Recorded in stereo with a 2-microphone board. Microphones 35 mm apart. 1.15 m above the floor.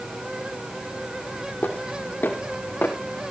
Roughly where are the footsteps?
Left.